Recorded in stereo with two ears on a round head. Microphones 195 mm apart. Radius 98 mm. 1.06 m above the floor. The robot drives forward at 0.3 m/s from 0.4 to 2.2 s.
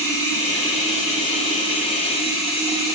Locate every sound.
0.0 s running water: 15° left (ahead or behind), 1.1 m; by 3.0 s 25° left (ahead or behind), 0.6 m